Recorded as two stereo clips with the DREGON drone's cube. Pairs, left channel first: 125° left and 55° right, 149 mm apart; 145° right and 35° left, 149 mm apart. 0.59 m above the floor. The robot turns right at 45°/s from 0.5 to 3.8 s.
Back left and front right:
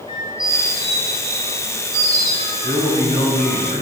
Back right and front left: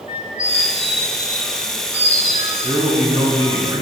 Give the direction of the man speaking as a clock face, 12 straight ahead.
10 o'clock.